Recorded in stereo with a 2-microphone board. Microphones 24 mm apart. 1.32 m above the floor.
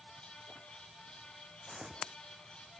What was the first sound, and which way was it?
Footsteps, 15° right (ahead or behind).